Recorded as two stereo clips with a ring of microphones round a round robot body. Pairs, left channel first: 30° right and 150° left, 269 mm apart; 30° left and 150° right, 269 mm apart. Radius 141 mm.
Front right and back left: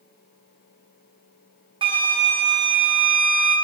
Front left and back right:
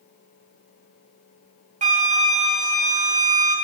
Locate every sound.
1.8 s a flute: 165° right, 1.0 m